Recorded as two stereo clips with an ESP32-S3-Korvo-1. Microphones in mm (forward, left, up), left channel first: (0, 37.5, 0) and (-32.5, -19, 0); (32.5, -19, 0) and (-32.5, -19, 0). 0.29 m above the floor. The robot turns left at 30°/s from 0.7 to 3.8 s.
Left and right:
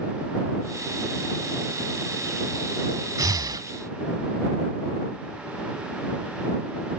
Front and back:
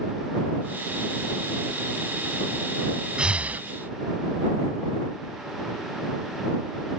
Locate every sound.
3.2 s breathing: 105° right; by 3.7 s 120° right